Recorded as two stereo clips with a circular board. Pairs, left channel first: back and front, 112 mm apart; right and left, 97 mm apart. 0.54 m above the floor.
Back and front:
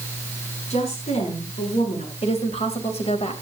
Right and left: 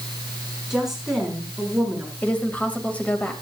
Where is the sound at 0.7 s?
175° left, 5.5 m.